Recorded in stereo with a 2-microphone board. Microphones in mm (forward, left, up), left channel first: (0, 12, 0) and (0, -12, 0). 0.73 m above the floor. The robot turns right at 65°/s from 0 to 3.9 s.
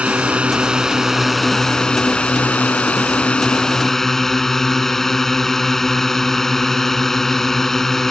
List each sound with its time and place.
0.0 s a drone: 90° right; by 8.1 s 165° left